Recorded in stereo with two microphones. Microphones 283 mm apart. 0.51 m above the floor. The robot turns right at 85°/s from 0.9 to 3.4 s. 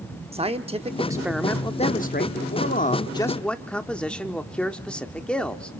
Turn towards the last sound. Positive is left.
turn(degrees=175)